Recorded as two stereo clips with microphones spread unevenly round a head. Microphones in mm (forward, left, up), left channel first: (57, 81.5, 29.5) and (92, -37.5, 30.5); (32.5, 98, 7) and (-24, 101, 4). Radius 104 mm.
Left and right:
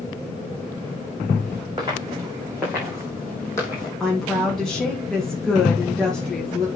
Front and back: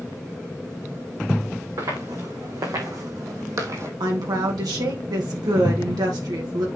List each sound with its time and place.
1.8 s footsteps: 145° right, 4.5 m; by 3.9 s 165° left, 2.5 m
4.0 s a woman speaking: 165° right, 1.9 m